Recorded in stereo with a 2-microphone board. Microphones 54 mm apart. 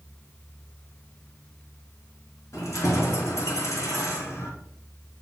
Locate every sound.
2.5 s keys jangling: 65° left (ahead or behind), 2.5 m